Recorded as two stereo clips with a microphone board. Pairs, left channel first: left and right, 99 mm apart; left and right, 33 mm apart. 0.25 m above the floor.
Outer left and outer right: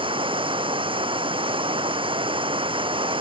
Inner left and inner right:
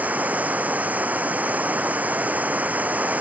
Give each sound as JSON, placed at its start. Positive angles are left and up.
{"t": 0.0, "sound": "running water", "side_deg": -60}